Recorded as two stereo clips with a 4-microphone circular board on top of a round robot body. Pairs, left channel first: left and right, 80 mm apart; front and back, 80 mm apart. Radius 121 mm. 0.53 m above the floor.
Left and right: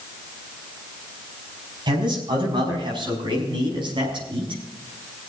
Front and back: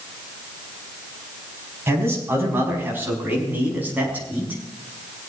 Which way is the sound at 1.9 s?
120° right.